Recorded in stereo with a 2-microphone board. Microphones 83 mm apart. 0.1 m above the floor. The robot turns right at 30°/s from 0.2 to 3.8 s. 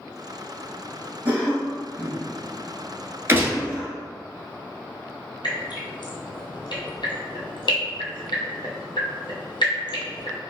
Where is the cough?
20° right (ahead or behind), 1.2 m; by 4.0 s 15° right (ahead or behind), 1.2 m.